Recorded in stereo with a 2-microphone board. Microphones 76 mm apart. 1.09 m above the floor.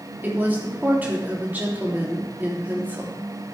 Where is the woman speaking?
25° right (ahead or behind), 3 m.